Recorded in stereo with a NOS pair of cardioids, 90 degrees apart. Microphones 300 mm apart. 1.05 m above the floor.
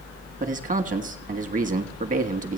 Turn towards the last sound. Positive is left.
turn(degrees=-25)